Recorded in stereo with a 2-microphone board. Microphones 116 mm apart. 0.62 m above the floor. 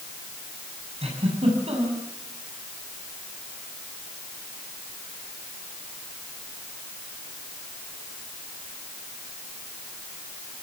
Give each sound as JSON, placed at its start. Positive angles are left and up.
{"t": 1.0, "sound": "a giggle", "side_deg": -60, "distance_m": 5.5}